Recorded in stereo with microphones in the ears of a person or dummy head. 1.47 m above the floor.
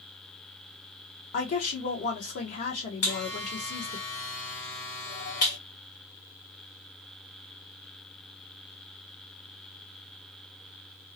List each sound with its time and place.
1.3 s a woman speaking: 45° left (ahead or behind), 0.9 m
3.0 s a buzzer: 55° left (ahead or behind), 1.4 m